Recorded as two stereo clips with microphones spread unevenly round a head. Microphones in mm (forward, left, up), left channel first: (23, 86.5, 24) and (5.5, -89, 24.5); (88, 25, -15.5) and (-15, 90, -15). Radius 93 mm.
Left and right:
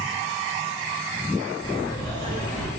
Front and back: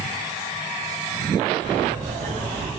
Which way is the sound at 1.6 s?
145° left.